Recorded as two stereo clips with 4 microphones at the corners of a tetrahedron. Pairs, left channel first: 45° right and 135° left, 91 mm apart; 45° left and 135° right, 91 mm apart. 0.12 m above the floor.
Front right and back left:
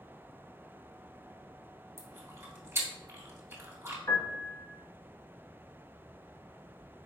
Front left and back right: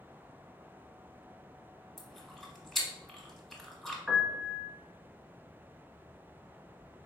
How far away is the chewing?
About 1.2 m.